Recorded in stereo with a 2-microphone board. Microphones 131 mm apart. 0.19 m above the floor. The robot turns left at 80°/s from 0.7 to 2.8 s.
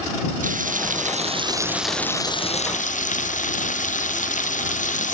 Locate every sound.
0.4 s frying: 85° right; by 5.1 s 105° left